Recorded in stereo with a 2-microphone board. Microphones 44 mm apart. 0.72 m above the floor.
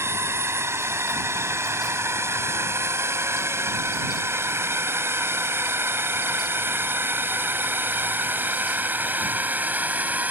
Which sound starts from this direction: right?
A drone, at 0.0 s.